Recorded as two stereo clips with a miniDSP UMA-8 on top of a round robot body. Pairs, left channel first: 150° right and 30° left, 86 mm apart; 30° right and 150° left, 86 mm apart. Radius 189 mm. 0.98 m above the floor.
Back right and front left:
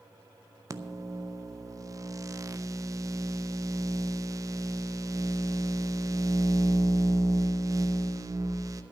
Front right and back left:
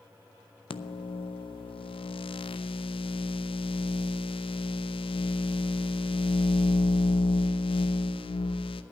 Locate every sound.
0.7 s a microwave: 25° right, 0.6 m